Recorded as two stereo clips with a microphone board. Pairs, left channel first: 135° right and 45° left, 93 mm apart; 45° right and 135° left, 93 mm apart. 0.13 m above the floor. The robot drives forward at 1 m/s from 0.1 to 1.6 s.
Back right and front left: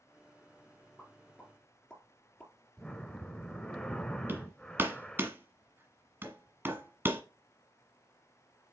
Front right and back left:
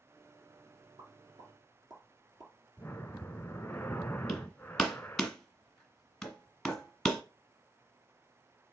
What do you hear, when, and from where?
1.0 s a pop: 145° left, 2.0 m; by 2.5 s 155° left, 2.5 m
2.8 s breathing: 75° right, 0.6 m
4.3 s hammering: 35° left, 1.3 m